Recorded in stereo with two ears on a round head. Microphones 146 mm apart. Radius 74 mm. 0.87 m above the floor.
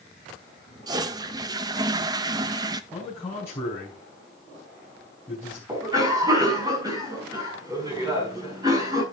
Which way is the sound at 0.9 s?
25° right (ahead or behind).